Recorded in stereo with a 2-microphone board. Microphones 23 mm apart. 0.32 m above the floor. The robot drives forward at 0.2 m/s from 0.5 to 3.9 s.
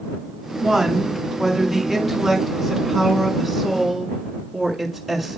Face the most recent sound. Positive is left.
turn(degrees=0)  # may be behind; listen again after turning